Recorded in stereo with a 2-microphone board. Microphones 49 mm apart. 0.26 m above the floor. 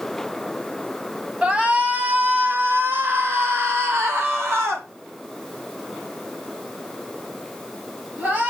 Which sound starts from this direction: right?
A shout, at 1.4 s.